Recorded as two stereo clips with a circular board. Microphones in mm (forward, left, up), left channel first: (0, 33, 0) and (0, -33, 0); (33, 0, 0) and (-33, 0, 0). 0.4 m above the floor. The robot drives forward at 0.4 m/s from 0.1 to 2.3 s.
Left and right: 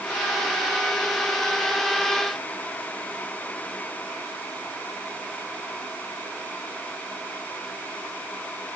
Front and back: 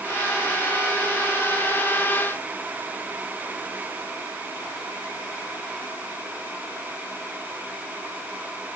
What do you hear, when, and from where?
Only background noise.